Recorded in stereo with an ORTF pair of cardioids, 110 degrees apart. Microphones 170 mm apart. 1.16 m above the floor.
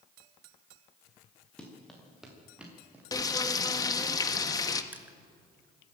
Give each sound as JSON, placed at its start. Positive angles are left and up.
{"t": 1.6, "sound": "running footsteps", "azimuth_deg": 5, "distance_m": 6.5}
{"t": 3.1, "sound": "frying", "azimuth_deg": 20, "distance_m": 1.3}
{"t": 4.9, "sound": "crushing", "azimuth_deg": -10, "distance_m": 1.8}